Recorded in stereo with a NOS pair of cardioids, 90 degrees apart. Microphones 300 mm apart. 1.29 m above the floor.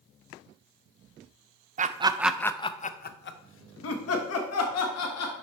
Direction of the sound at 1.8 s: 30° right.